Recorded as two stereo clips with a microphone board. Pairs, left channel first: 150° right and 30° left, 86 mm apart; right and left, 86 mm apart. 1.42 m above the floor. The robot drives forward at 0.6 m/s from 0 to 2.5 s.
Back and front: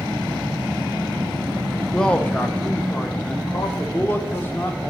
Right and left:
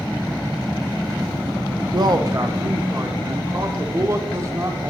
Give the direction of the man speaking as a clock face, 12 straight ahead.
8 o'clock.